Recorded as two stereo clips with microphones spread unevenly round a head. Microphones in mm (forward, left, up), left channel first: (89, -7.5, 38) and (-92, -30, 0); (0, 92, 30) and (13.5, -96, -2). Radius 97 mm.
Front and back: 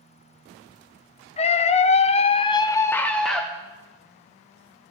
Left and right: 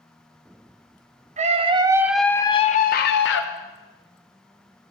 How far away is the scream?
About 0.7 m.